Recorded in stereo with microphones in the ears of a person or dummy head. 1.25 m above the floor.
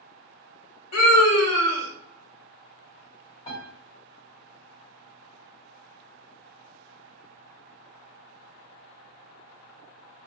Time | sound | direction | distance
0.9 | a scream | 75° left (ahead or behind) | 1.1 m
3.5 | a piano | 20° left (ahead or behind) | 1.6 m